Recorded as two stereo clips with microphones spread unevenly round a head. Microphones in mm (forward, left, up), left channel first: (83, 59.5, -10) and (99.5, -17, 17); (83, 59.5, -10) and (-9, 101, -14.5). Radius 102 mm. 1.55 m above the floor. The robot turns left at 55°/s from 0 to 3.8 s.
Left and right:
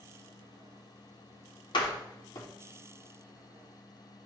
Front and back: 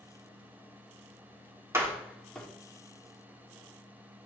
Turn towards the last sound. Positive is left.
turn(degrees=-20)